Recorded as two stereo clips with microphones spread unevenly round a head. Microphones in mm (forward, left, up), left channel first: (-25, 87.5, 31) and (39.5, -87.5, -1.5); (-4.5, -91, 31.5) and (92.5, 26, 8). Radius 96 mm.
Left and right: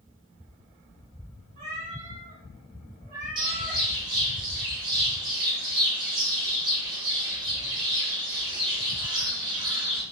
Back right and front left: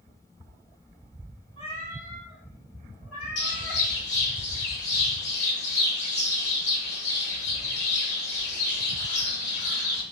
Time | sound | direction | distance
1.6 | a cat meowing | 120° right | 1.4 m
3.4 | a bird | 140° right | 0.9 m